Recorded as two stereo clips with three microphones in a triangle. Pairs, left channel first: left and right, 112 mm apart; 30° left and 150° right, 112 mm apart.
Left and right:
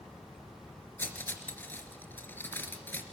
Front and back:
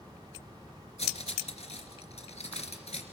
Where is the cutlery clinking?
20° left, 3 m.